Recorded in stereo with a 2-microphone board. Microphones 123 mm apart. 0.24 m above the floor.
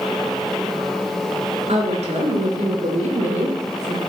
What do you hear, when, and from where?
1.7 s a woman speaking: 60° right (ahead or behind), 3.5 m; by 4.0 s 70° right (ahead or behind), 4.5 m